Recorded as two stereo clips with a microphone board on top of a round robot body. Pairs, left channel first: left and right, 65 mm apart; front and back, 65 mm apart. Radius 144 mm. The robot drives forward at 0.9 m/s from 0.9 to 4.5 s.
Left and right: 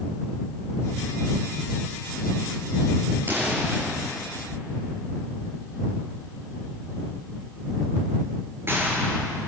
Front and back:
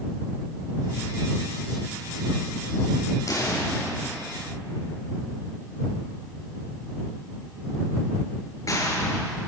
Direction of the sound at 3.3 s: 30° right.